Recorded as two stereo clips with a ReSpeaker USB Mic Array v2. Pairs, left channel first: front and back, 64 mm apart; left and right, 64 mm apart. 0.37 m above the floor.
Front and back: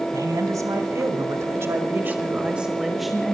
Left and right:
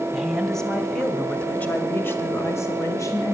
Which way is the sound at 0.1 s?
Straight behind.